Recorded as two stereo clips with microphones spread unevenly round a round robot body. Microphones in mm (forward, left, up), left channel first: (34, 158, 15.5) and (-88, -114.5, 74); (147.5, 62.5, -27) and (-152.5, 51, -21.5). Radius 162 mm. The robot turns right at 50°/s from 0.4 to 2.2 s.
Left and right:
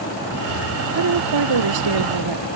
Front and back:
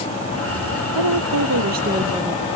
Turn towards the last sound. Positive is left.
turn(degrees=-90)